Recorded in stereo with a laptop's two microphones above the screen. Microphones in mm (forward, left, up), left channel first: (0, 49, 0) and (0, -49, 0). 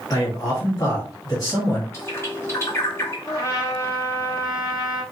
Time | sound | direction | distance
0.1 | a man speaking | 45° left (ahead or behind) | 2 m
1.9 | a bird | 30° left (ahead or behind) | 1.0 m
3.2 | a trumpet | 40° left (ahead or behind) | 1.3 m